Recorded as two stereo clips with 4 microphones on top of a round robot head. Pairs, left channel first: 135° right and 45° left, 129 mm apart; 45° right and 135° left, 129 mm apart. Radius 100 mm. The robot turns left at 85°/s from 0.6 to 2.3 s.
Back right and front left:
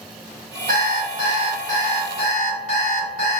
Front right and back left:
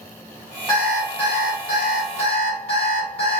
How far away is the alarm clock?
About 1.1 m.